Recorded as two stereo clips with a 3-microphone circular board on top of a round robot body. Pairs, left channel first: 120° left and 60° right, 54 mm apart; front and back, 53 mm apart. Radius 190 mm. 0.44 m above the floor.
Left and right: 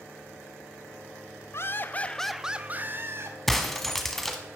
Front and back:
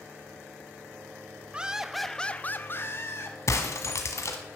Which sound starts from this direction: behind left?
Laughter, at 1.5 s.